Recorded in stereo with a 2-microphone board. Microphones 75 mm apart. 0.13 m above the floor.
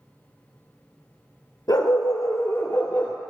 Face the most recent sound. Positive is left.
turn(degrees=20)  # may be behind; listen again after turning